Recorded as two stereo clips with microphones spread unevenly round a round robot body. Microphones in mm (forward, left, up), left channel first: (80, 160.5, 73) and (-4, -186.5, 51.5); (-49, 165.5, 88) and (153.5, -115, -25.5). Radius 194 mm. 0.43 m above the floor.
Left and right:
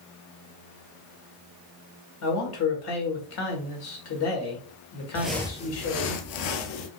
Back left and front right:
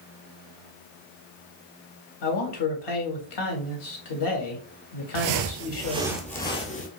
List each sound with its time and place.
2.2 s a man speaking: 120° left, 2.0 m
5.2 s footsteps: 20° right, 0.6 m; by 6.9 s 70° left, 0.9 m